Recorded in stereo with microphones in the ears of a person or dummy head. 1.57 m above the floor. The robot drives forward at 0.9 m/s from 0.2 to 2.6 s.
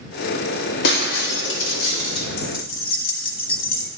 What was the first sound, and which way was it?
Breaking glass, 65° left (ahead or behind).